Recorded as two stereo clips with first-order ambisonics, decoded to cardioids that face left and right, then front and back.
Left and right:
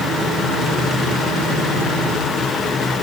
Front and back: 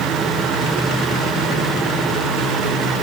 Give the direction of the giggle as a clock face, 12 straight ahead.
I don't hear a giggle.